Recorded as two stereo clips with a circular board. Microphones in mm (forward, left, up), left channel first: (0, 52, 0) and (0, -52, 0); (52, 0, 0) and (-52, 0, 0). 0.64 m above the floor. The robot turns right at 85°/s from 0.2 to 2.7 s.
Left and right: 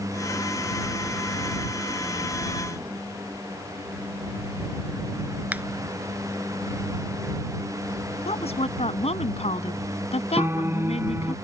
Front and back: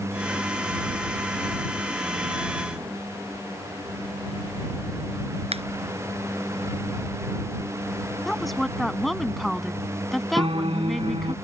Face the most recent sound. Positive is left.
turn(degrees=-155)